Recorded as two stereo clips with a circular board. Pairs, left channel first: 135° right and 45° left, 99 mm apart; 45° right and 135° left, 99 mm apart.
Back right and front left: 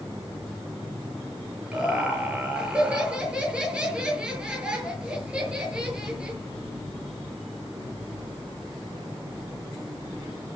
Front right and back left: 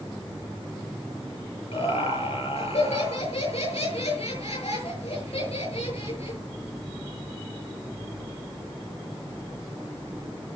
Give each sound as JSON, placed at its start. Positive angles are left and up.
{"t": 1.7, "sound": "laughter", "azimuth_deg": -35, "distance_m": 7.0}